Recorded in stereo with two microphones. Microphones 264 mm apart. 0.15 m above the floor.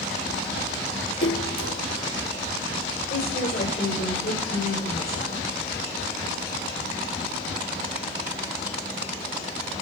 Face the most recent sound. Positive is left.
turn(degrees=40)  # may be behind; listen again after turning